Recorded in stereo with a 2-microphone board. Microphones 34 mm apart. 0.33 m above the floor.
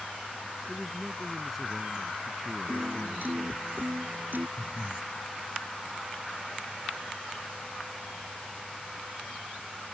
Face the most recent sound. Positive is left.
turn(degrees=25)  # may be behind; listen again after turning